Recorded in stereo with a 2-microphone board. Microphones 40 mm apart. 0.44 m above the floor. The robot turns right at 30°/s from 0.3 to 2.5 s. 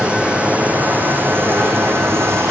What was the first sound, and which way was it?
Running water, 150° right.